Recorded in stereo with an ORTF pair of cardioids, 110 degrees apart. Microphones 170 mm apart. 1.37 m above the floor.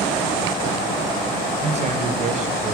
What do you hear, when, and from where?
1.6 s a man speaking: 40° right, 5 m; by 2.7 s 50° right, 4 m